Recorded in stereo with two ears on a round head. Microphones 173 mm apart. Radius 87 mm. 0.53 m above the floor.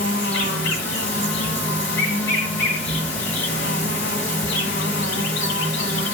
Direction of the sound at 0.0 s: 65° left (ahead or behind).